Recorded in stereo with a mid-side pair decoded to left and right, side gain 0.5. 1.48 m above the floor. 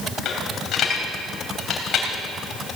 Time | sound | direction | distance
0.2 | a dropped coin | 60° left | 3 m